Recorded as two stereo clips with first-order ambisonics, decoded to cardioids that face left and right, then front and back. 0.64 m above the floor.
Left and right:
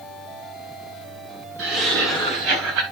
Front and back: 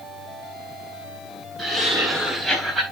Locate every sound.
1.6 s laughter: 105° right, 5 m; by 2.8 s 100° right, 4 m